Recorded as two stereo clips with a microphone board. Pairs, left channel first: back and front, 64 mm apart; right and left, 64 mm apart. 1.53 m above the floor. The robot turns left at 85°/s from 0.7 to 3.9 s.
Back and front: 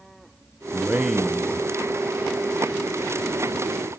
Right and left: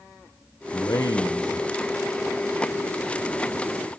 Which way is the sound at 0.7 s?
50° right.